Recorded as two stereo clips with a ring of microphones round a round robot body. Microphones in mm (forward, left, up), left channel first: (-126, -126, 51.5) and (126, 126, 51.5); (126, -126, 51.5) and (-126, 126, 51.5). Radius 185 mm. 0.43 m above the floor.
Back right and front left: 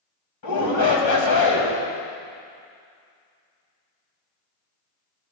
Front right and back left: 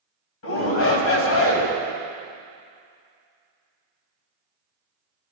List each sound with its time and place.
0.4 s a shout: 95° right, 2.5 m